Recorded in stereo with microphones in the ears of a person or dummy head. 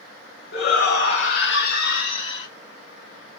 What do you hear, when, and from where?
0.5 s a shout: 70° left (ahead or behind), 1.4 m; by 2.5 s 35° left (ahead or behind), 1.0 m